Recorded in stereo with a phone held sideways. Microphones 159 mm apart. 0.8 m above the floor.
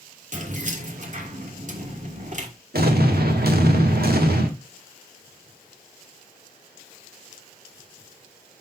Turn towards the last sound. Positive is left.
turn(degrees=-75)  # may be behind; listen again after turning